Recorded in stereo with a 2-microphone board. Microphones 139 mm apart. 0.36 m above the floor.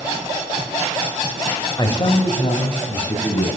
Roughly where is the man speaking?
Left.